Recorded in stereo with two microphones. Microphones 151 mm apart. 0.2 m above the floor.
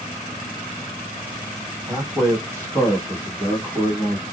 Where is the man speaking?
20° right (ahead or behind), 1.7 m; by 4.2 s 5° left (ahead or behind), 1.9 m.